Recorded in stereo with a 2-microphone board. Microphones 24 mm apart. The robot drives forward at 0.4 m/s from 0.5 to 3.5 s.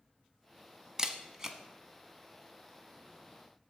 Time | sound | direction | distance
1.0 | a camera shutter | 25° right (ahead or behind) | 0.7 m